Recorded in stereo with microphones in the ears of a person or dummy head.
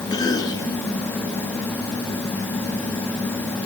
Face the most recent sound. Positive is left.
turn(degrees=20)  # may be behind; listen again after turning